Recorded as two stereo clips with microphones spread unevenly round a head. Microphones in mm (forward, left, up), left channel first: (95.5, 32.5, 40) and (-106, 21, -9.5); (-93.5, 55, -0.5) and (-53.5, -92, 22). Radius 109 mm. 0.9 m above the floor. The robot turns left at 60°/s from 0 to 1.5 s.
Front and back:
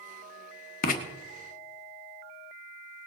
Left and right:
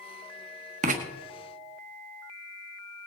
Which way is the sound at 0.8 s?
45° right.